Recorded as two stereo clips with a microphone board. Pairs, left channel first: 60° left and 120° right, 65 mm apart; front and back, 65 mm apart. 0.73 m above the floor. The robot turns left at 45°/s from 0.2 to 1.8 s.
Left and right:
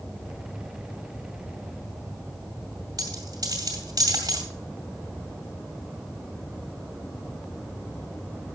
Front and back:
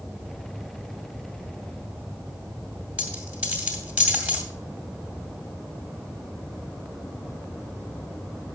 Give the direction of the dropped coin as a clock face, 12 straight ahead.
4 o'clock.